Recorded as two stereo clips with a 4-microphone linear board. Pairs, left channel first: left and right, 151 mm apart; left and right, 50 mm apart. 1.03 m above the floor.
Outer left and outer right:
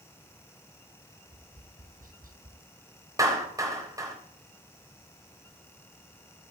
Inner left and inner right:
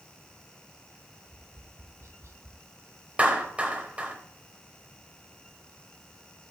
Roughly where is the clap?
Right.